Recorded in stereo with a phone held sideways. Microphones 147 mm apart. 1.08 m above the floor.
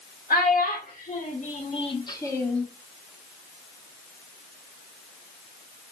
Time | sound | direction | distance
0.3 | a child speaking | 75° left (ahead or behind) | 1.5 m